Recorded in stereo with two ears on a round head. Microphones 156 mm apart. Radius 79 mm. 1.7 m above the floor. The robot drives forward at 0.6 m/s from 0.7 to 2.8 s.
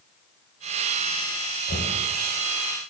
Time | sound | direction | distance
1.7 | knocking | 60° left (ahead or behind) | 5.5 m